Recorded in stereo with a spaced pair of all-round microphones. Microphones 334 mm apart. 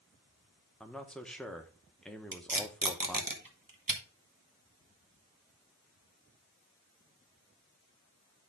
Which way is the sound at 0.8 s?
Centre (ahead or behind).